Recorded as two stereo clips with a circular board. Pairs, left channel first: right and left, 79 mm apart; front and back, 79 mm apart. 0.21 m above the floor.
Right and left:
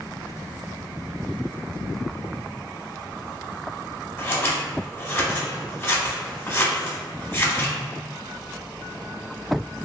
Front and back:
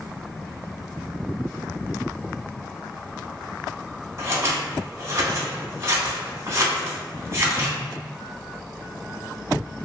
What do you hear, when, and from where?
4.2 s scissors: 140° right, 0.9 m